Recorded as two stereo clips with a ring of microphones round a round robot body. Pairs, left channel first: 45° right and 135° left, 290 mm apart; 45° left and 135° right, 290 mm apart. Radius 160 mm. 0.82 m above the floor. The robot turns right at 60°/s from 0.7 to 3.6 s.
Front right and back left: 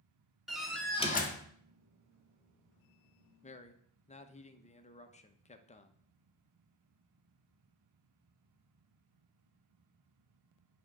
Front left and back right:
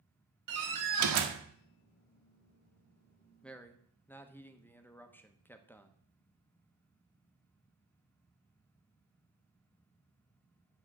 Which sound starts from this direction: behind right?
A door slam, at 0.5 s.